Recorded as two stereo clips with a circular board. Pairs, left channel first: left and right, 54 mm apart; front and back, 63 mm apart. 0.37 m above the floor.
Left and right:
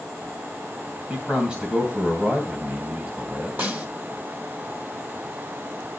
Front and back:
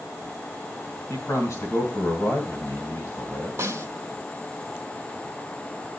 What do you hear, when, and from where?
1.1 s a man speaking: 20° right, 2.5 m
3.6 s a snare drum: 140° right, 2.5 m